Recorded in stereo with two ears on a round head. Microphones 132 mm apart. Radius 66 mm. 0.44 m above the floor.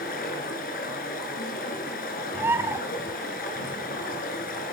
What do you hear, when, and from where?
0.0 s running water: 65° left (ahead or behind), 5 m
2.3 s a bird: 15° right (ahead or behind), 1.4 m